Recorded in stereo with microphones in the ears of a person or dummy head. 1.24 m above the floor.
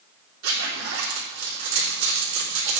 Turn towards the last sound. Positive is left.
turn(degrees=-85)